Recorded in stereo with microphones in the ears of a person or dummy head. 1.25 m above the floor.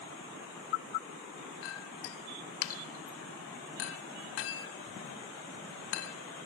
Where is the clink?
75° left (ahead or behind), 1.3 m.